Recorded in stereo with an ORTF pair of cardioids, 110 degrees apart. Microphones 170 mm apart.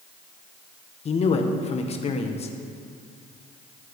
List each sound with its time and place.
1.1 s a man speaking: 40° left, 1.5 m